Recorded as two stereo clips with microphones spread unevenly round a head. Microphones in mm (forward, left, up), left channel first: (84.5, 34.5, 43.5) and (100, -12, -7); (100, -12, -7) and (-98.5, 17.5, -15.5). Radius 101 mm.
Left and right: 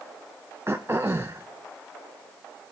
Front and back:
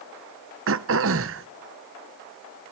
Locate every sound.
0.7 s throat clearing: 165° right, 0.6 m